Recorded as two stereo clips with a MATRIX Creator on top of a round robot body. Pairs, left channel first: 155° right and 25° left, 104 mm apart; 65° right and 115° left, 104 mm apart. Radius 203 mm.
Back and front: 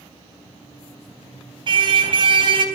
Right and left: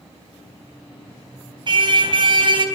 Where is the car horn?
65° left, 4 m.